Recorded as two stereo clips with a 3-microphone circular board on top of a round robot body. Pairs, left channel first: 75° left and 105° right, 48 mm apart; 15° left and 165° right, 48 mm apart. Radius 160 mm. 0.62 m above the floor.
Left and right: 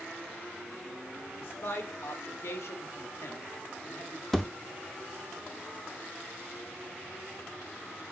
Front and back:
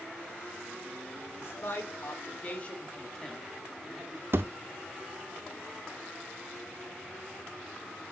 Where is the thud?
160° left, 0.6 m.